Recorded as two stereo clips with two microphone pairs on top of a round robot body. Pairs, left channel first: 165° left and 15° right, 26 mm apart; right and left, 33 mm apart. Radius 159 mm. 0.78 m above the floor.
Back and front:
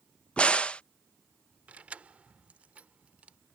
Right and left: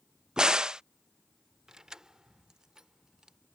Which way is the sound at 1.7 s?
20° left.